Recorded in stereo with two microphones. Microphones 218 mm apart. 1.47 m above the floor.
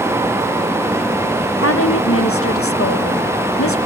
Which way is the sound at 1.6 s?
85° left.